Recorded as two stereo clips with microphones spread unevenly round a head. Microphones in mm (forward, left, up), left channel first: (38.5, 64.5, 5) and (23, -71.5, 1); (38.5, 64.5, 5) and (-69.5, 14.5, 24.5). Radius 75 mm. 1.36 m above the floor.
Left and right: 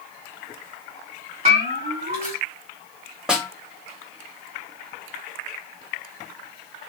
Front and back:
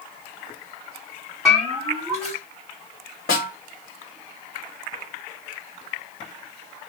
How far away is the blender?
I don't hear a blender.